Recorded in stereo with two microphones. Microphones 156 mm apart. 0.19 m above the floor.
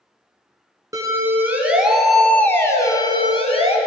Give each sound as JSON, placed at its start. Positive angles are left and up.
{"t": 0.9, "sound": "a siren", "side_deg": -20, "distance_m": 2.0}